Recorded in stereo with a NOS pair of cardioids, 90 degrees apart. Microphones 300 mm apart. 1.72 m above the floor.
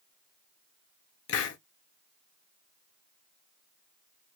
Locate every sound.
1.3 s a hiss: 55° left, 0.7 m